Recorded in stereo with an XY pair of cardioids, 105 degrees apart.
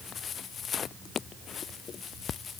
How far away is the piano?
I don't hear a piano.